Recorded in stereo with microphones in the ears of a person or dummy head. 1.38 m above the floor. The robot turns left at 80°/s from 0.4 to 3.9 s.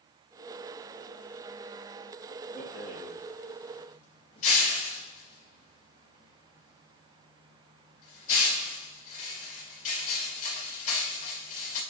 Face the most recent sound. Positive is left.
turn(degrees=45)  # may be behind; listen again after turning